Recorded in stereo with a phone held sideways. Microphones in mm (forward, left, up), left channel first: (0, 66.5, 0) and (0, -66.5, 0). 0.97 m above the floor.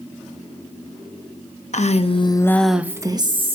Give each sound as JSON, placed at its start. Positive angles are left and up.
{"t": 1.7, "sound": "a woman speaking", "side_deg": 60, "distance_m": 1.1}